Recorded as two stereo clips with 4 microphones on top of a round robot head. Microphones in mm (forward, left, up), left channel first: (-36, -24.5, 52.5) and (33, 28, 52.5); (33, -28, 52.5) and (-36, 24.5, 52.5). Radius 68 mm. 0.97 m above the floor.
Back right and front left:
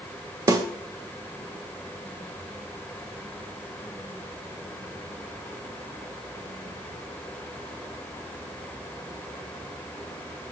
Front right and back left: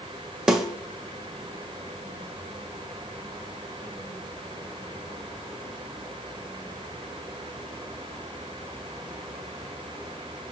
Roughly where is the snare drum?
Ahead left.